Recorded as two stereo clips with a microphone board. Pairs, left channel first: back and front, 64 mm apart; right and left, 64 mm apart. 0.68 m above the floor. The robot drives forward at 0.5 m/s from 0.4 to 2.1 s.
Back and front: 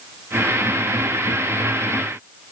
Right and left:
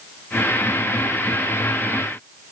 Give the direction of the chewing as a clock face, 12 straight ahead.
No chewing in this recording.